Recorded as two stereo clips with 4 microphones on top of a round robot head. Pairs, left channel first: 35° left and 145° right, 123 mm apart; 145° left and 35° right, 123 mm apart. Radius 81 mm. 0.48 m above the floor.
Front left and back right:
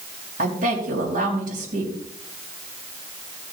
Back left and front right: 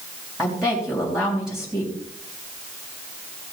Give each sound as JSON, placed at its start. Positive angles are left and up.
{"t": 0.4, "sound": "a woman speaking", "azimuth_deg": -125, "distance_m": 4.5}